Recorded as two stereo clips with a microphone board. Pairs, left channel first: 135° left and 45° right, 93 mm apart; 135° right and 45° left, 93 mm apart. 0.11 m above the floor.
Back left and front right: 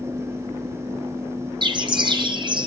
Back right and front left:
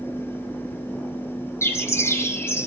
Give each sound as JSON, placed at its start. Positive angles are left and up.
{"t": 1.6, "sound": "a bird", "azimuth_deg": -75, "distance_m": 2.5}